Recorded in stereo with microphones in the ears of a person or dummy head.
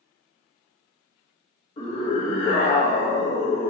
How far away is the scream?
About 1.0 m.